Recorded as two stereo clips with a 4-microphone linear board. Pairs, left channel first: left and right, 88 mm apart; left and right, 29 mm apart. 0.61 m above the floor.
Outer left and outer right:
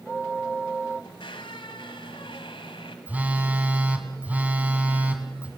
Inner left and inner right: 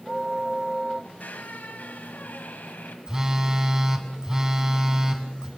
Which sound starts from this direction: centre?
A phone buzzing, at 3.1 s.